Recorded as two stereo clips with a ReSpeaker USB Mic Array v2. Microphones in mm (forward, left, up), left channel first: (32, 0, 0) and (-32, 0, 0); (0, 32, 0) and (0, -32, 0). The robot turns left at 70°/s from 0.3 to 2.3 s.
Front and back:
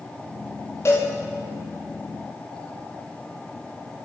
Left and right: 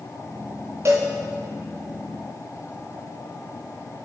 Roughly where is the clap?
No clap in this recording.